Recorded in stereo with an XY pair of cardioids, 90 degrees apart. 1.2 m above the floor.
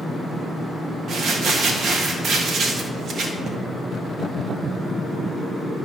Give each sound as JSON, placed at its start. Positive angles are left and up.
{"t": 1.1, "sound": "crumpling", "azimuth_deg": -65, "distance_m": 1.4}